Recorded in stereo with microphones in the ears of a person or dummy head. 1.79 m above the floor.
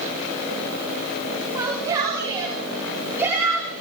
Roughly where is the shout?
Centre.